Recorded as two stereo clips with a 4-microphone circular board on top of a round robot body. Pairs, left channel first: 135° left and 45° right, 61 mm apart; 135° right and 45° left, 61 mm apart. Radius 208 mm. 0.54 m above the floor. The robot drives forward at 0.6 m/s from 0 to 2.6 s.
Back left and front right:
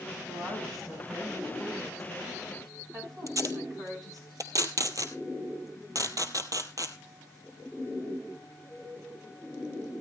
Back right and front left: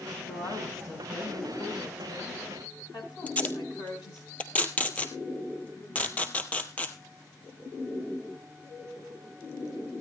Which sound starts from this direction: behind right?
A woman speaking, at 0.3 s.